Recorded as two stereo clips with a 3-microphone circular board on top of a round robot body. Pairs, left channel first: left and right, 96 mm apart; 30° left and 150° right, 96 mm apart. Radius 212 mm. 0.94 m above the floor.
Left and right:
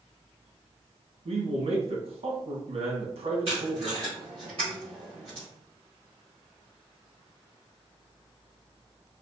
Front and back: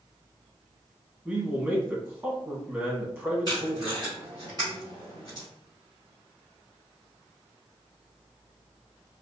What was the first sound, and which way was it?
A man speaking, 75° right.